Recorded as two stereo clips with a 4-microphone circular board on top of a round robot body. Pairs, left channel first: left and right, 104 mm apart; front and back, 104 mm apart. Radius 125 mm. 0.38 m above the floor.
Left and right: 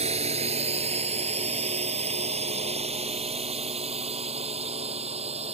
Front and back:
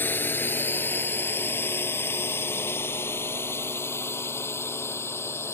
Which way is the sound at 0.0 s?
70° right.